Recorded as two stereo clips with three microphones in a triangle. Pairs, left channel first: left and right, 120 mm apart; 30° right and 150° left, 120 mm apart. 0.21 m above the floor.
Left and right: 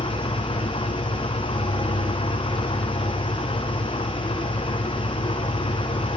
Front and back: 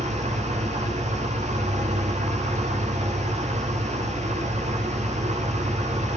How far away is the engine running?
About 8.5 m.